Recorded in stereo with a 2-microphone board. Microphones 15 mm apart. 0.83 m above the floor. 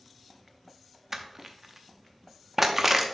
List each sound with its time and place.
1.1 s crushing: 15° right (ahead or behind), 0.7 m